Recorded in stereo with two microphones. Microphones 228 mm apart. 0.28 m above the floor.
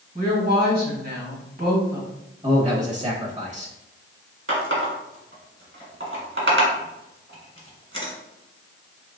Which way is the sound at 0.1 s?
45° right (ahead or behind).